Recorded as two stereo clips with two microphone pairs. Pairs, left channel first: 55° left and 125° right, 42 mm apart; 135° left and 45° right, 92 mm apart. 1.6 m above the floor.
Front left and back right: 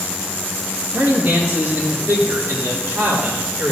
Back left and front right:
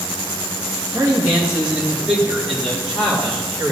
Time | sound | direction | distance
0.9 | a man speaking | 115° right | 2 m